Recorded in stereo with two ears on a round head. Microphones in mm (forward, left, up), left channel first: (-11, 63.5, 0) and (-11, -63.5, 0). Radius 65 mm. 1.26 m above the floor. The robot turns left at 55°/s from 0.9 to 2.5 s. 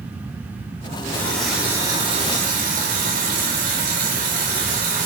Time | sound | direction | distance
1.1 | a running tap | 20° left | 3.5 m